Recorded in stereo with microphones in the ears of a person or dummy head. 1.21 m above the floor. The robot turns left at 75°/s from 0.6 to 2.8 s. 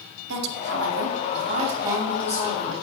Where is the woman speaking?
70° right, 1.0 m; by 2.8 s 130° left, 1.0 m.